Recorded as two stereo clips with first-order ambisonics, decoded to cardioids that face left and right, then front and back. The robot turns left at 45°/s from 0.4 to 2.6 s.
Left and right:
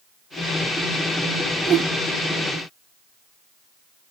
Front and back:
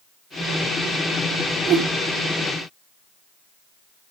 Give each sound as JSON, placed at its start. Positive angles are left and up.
{"t": 1.7, "sound": "a whoosh", "azimuth_deg": -140, "distance_m": 1.5}